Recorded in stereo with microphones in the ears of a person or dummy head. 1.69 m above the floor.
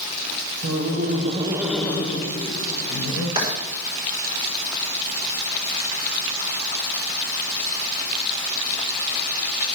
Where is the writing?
25° right (ahead or behind), 6 m.